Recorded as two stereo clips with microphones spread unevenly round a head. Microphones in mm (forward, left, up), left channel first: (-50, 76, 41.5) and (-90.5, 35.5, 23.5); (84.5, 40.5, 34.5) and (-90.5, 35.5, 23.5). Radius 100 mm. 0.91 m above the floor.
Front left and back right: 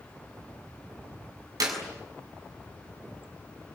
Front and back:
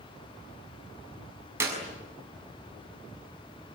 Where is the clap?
100° right, 7 m.